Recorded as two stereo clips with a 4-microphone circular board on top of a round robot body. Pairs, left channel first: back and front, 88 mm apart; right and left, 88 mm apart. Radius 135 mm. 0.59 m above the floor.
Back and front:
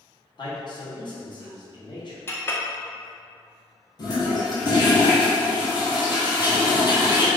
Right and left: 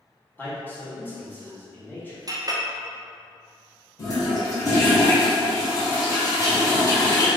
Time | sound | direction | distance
0.4 | a man speaking | 155° right | 1.8 m
2.3 | a clink | 125° left | 0.9 m
4.0 | a toilet flushing | 140° right | 1.8 m